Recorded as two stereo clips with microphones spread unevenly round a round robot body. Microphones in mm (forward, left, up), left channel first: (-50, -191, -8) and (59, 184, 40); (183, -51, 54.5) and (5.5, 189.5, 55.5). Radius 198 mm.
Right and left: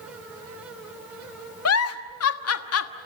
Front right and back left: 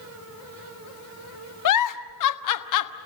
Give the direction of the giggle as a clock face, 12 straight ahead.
2 o'clock.